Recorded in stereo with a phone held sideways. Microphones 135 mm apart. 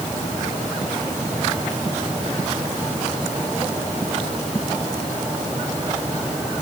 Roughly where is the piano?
No piano in this recording.